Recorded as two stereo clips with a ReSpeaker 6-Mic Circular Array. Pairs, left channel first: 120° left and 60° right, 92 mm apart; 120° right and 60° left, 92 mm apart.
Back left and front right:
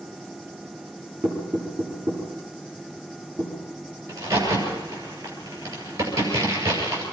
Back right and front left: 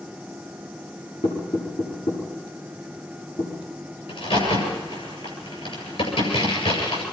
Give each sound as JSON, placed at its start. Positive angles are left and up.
{"t": 1.2, "sound": "knocking", "azimuth_deg": -130, "distance_m": 9.0}
{"t": 4.1, "sound": "a crack", "azimuth_deg": -115, "distance_m": 8.0}